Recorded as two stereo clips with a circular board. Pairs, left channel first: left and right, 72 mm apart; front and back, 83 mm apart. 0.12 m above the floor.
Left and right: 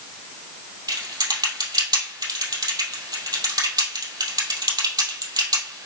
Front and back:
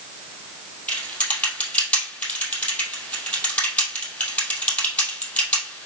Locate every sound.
0.9 s typing on a keyboard: 75° right, 2.5 m